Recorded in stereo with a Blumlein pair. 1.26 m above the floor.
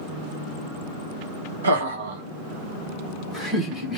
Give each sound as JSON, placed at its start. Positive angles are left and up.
{"t": 1.6, "sound": "laughter", "azimuth_deg": -65, "distance_m": 0.9}